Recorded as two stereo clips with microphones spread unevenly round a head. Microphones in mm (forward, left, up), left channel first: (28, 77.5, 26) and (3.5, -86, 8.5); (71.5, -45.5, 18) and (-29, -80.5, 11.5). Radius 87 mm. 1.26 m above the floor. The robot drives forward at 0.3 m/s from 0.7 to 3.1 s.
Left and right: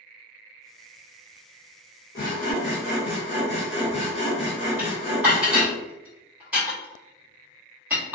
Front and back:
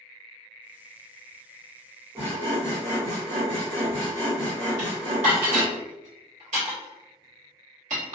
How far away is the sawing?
About 0.6 m.